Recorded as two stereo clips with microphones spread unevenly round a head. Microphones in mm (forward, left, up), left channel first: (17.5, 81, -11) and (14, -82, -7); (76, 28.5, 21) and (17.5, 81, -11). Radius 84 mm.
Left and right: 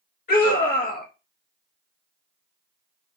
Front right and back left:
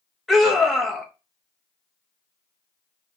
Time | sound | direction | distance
0.3 | a scream | 60° left | 1.6 m